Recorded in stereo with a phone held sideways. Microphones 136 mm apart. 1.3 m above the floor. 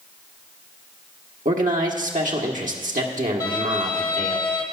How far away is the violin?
About 1.3 m.